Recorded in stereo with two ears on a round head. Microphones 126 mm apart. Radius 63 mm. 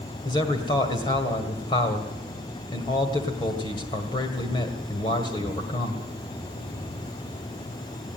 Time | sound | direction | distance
0.2 | a man speaking | 35° left (ahead or behind) | 1.8 m